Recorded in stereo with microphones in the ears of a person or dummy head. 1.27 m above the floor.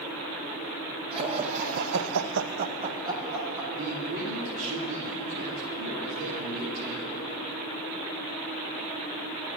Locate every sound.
1.1 s laughter: 30° right (ahead or behind), 1.6 m; by 3.6 s 10° right (ahead or behind), 1.7 m
3.7 s a man speaking: 70° right (ahead or behind), 2.5 m